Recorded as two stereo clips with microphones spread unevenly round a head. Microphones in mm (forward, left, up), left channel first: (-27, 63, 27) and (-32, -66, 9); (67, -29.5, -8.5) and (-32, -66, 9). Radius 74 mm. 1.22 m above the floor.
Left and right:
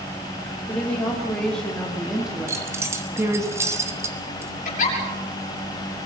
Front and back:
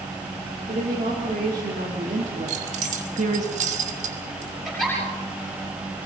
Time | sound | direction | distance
0.7 | a woman speaking | 165° left | 3.5 m
2.5 | keys jangling | 165° right | 2.5 m
4.7 | a giggle | 110° left | 7 m